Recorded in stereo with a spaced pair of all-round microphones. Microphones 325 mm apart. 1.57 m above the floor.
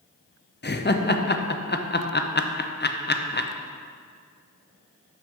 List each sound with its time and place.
0.6 s laughter: 35° left (ahead or behind), 0.6 m